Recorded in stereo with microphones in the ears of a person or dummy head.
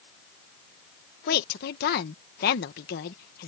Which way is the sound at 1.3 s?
55° left (ahead or behind).